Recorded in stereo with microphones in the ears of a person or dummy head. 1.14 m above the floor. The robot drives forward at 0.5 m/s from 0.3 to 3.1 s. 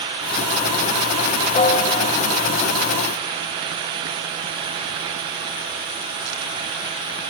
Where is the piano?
40° left (ahead or behind), 0.9 m; by 2.1 s 50° left (ahead or behind), 0.7 m.